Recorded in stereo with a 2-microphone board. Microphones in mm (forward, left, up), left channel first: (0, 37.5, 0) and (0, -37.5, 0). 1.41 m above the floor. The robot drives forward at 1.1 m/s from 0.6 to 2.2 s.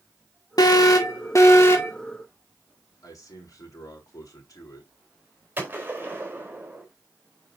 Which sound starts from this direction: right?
A gunshot, at 5.6 s.